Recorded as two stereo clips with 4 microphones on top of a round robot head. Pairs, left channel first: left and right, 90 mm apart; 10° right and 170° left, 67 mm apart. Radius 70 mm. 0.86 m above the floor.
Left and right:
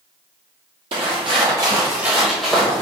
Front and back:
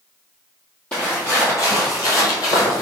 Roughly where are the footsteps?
Right.